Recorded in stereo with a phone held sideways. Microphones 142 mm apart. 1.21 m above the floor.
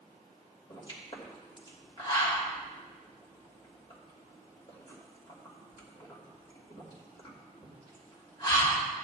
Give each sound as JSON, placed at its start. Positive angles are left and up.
{"t": 0.7, "sound": "a pop", "side_deg": 35, "distance_m": 2.5}